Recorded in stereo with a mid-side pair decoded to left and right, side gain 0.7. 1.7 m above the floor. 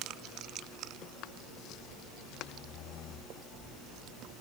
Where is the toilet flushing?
No toilet flushing in this recording.